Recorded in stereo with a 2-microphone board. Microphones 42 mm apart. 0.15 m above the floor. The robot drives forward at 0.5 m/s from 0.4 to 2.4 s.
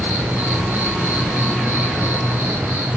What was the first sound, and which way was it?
An insect, 85° right.